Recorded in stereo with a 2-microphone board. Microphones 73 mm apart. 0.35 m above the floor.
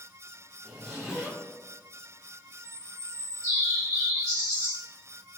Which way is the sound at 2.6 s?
40° right (ahead or behind).